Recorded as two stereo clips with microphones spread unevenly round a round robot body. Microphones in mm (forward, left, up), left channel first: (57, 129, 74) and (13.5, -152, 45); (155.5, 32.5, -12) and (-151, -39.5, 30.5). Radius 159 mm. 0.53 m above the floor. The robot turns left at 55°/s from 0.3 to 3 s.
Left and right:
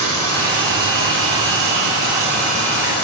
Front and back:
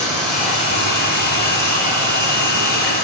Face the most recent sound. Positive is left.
turn(degrees=135)